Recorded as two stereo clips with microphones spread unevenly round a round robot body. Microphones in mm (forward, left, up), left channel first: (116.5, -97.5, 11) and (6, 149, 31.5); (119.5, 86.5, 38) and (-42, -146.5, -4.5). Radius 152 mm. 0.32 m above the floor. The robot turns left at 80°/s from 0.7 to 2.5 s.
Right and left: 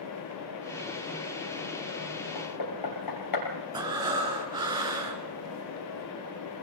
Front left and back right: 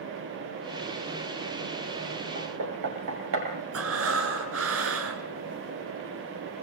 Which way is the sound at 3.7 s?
170° right.